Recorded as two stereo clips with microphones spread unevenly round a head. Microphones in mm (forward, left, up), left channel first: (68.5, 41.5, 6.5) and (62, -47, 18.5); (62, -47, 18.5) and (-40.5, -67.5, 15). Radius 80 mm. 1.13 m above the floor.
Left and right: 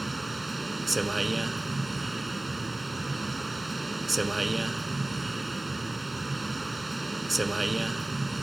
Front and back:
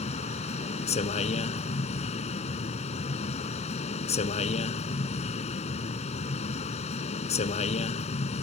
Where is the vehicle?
5° right.